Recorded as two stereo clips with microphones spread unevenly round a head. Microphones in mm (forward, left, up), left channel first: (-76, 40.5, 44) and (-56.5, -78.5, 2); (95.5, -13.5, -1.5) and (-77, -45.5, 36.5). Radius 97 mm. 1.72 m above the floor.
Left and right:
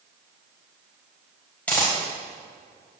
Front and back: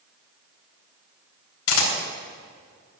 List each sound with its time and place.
1.7 s a camera shutter: 30° left, 2.5 m